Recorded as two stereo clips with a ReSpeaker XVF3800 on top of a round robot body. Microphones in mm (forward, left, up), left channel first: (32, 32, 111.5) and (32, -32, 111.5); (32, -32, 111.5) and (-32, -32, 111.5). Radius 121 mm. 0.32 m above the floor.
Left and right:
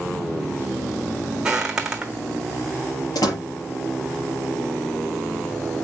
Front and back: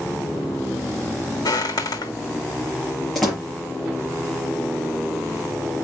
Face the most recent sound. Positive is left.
turn(degrees=90)